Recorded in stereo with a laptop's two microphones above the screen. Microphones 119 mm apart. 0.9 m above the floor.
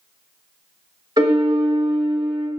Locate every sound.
1.2 s a piano: 35° right (ahead or behind), 1.2 m